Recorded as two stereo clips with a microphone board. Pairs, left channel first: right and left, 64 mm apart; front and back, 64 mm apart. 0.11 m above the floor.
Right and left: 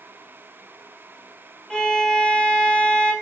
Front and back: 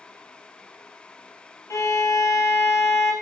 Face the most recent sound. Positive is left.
turn(degrees=-15)